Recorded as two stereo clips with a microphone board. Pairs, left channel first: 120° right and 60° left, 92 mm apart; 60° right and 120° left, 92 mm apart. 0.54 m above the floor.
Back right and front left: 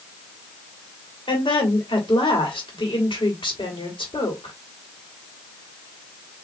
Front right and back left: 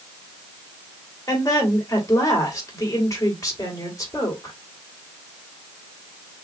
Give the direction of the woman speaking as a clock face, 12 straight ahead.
4 o'clock.